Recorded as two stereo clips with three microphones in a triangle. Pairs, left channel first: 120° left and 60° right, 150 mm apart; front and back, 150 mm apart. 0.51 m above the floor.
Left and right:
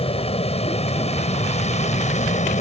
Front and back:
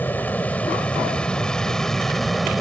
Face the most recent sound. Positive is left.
turn(degrees=90)